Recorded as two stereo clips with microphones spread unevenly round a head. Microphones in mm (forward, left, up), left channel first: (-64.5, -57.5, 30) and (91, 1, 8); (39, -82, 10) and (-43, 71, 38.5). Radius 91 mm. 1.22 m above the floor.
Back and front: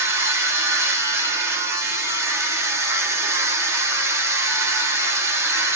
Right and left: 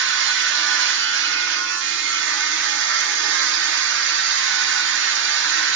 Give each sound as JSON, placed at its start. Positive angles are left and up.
{"t": 0.0, "sound": "a machine running", "azimuth_deg": 95, "distance_m": 0.8}